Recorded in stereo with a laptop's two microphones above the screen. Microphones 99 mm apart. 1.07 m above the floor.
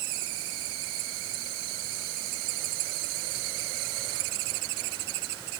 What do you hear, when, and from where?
Only background noise.